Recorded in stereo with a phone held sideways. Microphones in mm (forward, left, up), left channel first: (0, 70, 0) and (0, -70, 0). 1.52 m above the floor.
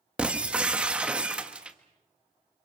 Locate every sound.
0.2 s breaking glass: 10° right (ahead or behind), 1.3 m